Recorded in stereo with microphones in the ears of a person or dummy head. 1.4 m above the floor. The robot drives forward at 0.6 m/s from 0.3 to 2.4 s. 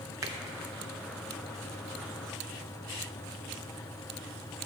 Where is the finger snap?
15° right (ahead or behind), 0.7 m.